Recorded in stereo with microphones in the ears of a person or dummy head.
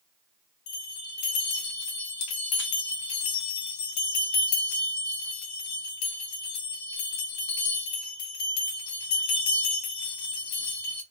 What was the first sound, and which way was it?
A bell, 80° left.